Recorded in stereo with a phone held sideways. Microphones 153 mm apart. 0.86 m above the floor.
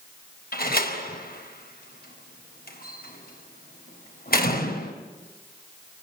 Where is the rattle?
No rattle in this recording.